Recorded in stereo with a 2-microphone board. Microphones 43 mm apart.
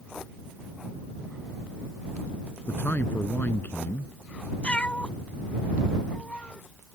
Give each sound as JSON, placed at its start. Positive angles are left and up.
{"t": 2.7, "sound": "a man speaking", "side_deg": 45}
{"t": 4.6, "sound": "a cat meowing", "side_deg": 25}